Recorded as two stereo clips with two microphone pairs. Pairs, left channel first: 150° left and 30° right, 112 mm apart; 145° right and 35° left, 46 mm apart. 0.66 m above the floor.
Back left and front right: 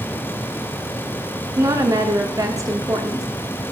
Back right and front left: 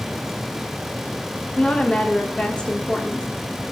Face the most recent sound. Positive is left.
turn(degrees=-80)